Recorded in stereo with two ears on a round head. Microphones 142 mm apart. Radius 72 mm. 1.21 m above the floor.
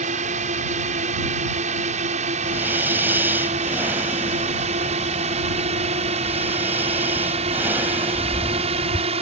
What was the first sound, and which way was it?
A drone, 50° right (ahead or behind).